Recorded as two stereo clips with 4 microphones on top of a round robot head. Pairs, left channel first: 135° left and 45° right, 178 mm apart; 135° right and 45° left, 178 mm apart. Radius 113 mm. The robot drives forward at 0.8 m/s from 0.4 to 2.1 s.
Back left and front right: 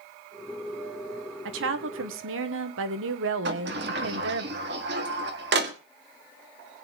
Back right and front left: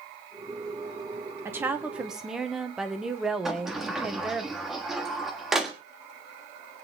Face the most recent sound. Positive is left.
turn(degrees=-45)